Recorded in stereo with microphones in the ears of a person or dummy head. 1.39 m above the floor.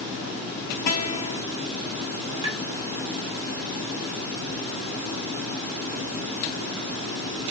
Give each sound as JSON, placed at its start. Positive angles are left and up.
{"t": 0.9, "sound": "a guitar", "side_deg": 45, "distance_m": 0.8}
{"t": 2.4, "sound": "tapping", "side_deg": -20, "distance_m": 1.2}